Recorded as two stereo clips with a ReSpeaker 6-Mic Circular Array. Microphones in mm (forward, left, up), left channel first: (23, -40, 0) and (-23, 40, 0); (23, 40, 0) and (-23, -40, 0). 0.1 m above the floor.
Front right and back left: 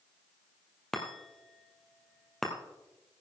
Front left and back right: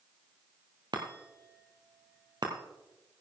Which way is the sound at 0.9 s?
150° right.